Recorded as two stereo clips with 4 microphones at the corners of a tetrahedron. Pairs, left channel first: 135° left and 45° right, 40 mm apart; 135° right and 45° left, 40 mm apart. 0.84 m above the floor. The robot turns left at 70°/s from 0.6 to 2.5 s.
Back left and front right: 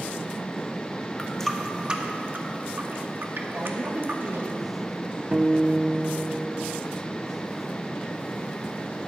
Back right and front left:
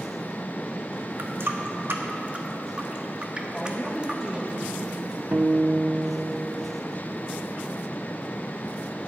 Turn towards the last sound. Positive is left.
turn(degrees=15)